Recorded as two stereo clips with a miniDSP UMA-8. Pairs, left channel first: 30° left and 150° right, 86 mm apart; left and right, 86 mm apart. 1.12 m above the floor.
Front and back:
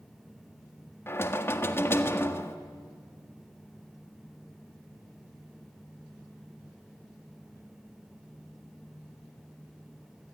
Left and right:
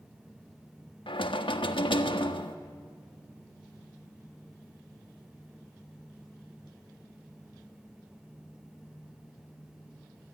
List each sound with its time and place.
1.1 s knocking: 90° left, 1.4 m